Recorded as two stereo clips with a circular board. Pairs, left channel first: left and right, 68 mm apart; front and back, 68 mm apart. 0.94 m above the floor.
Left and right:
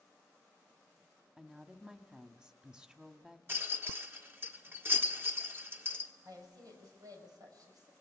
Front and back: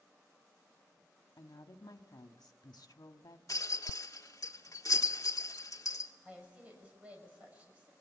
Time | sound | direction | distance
1.4 | a woman speaking | 10° right | 1.4 m
3.5 | a rattle | 35° right | 1.4 m
6.2 | a woman speaking | 110° right | 6 m